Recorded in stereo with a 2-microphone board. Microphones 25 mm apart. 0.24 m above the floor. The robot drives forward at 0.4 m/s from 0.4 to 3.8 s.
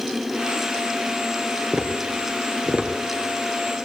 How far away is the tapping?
About 2.5 m.